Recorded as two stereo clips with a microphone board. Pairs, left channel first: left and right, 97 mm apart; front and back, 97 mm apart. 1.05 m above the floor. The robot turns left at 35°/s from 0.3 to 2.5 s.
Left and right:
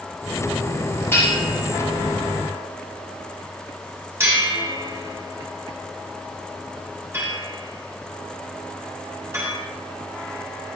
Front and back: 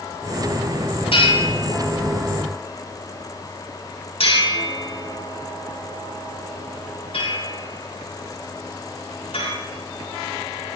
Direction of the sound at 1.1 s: 25° left.